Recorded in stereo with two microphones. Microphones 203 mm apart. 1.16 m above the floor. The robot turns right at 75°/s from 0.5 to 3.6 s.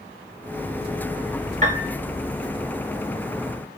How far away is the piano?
About 1.5 m.